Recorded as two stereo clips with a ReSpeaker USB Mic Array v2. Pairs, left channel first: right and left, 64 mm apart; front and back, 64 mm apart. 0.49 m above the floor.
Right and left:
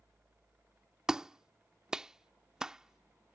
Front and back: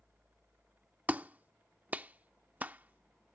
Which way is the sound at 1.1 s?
155° left.